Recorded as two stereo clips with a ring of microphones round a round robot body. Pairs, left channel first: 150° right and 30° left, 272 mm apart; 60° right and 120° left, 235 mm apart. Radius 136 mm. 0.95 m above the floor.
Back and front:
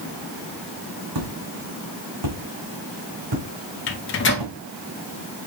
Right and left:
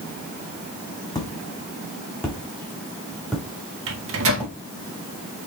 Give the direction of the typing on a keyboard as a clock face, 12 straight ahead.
No typing on a keyboard in this recording.